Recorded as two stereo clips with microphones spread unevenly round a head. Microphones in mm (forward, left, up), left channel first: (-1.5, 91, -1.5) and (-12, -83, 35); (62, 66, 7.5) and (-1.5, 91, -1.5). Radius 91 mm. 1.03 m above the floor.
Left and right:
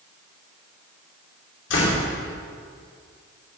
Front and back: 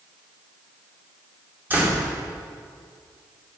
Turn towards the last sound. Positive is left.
turn(degrees=95)